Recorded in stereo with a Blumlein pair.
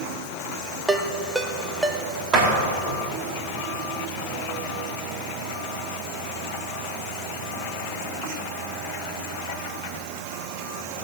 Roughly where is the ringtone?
Ahead.